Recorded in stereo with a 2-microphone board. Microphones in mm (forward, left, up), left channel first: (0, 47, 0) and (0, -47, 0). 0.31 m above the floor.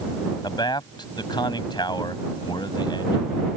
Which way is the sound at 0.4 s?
55° left (ahead or behind).